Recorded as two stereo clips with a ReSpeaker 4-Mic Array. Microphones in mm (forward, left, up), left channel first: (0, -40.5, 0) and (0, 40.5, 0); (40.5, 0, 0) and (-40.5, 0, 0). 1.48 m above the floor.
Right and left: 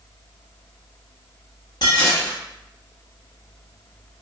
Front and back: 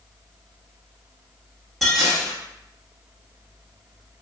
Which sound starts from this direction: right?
Dishes clattering, at 1.8 s.